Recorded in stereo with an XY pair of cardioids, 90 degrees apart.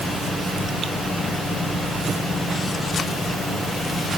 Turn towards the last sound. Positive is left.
No sound to turn to.